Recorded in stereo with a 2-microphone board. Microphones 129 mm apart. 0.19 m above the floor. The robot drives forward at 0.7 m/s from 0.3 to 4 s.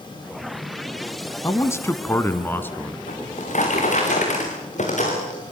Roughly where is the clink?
No clink in this recording.